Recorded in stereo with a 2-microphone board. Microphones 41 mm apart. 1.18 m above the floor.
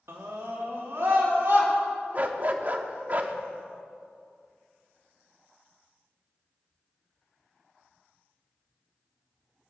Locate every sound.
0.1 s a scream: 80° right, 2.5 m; by 1.7 s 60° right (ahead or behind), 4.5 m
2.1 s a dog barking: 40° right (ahead or behind), 1.0 m